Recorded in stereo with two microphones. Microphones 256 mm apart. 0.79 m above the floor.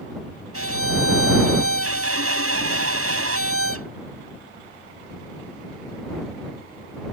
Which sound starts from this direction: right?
A violin, at 0.5 s.